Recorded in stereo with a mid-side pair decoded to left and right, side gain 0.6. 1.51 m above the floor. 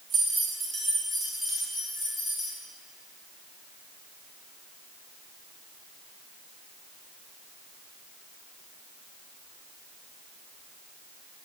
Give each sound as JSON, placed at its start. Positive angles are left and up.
{"t": 0.1, "sound": "keys jangling", "azimuth_deg": -40, "distance_m": 2.0}